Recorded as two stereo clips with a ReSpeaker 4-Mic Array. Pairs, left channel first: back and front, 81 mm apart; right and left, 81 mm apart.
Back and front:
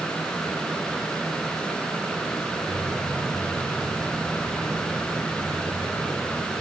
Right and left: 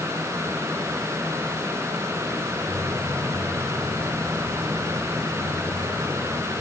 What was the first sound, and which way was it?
Footsteps, 80° left.